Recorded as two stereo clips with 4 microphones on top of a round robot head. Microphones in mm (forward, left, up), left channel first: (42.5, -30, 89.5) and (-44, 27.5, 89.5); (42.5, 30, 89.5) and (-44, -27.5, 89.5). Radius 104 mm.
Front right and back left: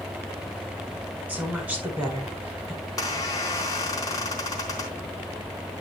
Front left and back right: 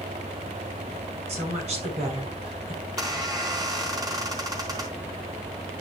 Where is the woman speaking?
140° right, 5.5 m.